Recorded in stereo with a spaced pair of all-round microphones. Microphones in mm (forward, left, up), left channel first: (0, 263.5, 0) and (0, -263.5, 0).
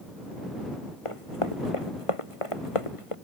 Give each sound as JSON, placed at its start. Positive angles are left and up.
{"t": 1.1, "sound": "running footsteps", "side_deg": 75}